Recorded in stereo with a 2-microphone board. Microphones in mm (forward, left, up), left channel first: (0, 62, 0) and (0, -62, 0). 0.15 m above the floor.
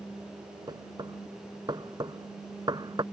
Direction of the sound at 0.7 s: 35° right (ahead or behind).